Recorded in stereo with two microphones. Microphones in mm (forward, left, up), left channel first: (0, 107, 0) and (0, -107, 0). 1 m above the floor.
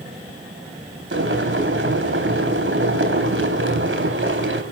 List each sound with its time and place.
1.1 s boiling: 70° right (ahead or behind), 3.5 m